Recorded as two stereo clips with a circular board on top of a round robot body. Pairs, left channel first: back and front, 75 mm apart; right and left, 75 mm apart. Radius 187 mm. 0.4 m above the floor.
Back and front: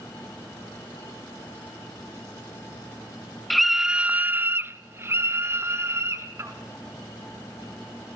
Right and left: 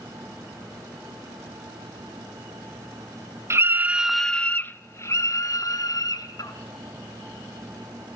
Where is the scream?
90° left, 1.0 m; by 6.5 s 60° right, 2.5 m.